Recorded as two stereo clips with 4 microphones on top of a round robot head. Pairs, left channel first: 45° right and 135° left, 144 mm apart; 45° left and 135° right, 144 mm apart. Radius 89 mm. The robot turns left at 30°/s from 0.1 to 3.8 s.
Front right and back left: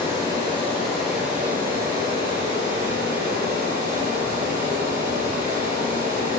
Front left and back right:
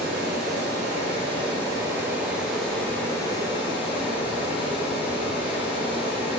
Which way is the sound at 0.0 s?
155° right.